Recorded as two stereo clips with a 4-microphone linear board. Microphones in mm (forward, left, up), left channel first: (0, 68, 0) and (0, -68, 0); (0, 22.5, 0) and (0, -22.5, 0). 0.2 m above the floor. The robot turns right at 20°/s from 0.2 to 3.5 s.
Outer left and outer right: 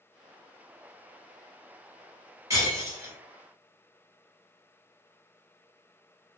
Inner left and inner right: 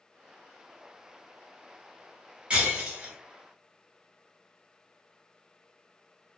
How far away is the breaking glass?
About 1.1 m.